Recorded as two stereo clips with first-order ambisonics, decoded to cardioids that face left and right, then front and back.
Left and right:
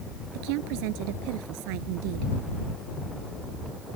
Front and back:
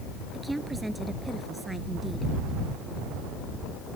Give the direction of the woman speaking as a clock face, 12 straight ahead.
3 o'clock.